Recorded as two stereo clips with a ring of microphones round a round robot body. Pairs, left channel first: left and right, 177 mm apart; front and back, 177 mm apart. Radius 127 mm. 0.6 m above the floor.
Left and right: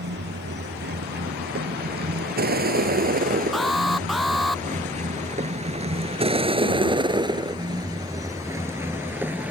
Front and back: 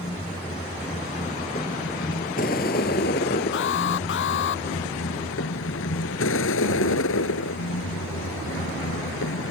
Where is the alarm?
Straight ahead.